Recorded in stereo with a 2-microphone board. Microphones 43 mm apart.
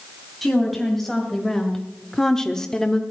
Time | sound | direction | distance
0.4 | a woman speaking | centre (ahead or behind) | 3 m